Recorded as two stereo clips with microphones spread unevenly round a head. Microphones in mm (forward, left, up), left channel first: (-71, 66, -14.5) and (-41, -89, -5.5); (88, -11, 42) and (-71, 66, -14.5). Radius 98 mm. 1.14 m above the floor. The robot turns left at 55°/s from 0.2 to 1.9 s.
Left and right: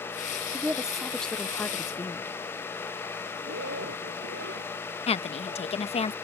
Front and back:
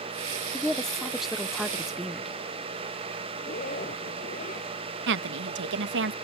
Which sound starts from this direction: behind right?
A woman speaking, at 0.5 s.